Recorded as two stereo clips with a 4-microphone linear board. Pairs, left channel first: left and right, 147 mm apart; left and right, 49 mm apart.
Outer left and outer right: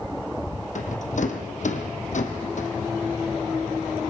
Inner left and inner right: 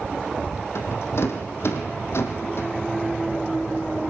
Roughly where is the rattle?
Left.